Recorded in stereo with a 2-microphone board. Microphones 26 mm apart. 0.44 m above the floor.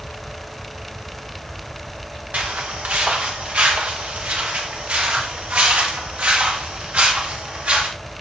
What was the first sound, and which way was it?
Footsteps, 80° right.